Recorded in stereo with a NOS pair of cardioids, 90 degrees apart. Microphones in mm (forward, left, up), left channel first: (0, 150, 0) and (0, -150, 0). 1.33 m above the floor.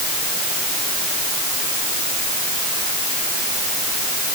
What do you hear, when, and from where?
Only background noise.